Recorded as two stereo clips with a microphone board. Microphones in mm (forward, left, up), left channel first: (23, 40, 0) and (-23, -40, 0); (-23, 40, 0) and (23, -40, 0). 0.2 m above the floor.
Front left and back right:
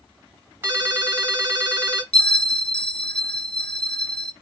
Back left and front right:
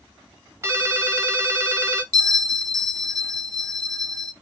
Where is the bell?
15° right, 0.5 m.